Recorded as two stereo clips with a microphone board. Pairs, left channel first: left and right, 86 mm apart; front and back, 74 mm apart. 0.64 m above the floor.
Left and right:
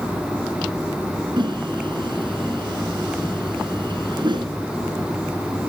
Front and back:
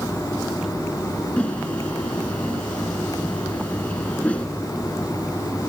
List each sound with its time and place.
1.4 s a whoosh: 70° right, 1.5 m